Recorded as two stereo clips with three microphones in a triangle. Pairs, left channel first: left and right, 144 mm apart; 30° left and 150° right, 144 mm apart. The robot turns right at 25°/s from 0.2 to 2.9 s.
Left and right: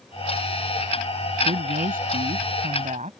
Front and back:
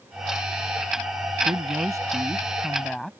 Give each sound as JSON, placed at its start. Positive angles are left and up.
{"t": 1.4, "sound": "a woman speaking", "azimuth_deg": -95}